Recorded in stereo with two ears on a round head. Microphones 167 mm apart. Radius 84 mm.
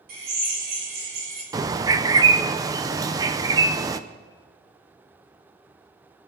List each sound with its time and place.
0.1 s a drill: 50° right (ahead or behind), 6.5 m
1.5 s a bird: 20° right (ahead or behind), 0.7 m